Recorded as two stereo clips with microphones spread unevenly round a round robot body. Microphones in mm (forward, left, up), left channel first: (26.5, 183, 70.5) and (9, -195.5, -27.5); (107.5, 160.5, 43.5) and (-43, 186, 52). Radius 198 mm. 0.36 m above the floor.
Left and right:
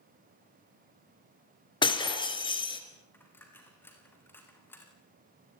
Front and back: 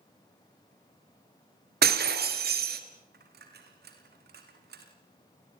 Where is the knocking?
I don't hear knocking.